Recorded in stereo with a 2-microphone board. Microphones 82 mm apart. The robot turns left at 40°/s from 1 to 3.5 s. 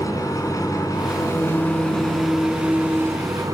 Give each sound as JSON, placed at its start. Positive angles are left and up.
{"t": 0.0, "sound": "an engine running", "azimuth_deg": 50, "distance_m": 5.0}